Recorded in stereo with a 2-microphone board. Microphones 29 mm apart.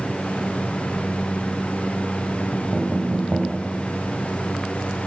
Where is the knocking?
40° right (ahead or behind), 1.0 m.